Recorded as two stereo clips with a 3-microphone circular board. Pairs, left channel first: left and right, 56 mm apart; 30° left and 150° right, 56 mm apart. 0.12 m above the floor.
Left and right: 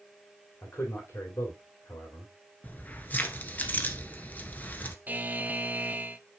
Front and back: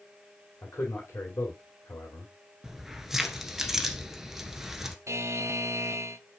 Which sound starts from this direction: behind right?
A buzzer, at 5.1 s.